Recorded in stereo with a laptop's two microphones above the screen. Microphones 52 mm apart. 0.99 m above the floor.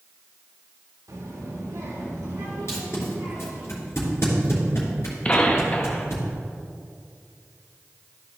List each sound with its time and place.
1.1 s a child speaking: 85° right, 1.7 m; by 3.7 s 60° right (ahead or behind), 5.5 m
2.7 s tape being pulled: 55° left (ahead or behind), 3 m
5.2 s a gunshot: 25° left (ahead or behind), 0.6 m